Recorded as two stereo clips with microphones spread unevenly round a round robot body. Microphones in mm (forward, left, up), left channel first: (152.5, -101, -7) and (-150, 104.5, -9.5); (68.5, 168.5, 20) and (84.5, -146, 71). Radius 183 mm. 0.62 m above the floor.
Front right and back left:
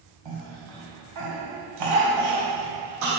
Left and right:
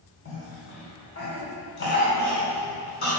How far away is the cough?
About 2.5 m.